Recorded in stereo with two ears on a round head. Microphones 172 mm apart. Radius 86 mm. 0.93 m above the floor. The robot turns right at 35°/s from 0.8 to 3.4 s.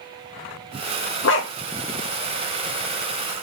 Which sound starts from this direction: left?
A dog barking, at 1.2 s.